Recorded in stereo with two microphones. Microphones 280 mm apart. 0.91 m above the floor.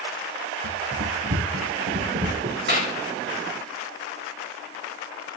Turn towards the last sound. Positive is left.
turn(degrees=-40)  # may be behind; listen again after turning